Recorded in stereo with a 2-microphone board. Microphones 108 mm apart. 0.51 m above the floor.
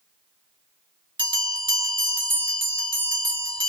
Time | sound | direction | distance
1.2 | a bell | 50° right (ahead or behind) | 0.9 m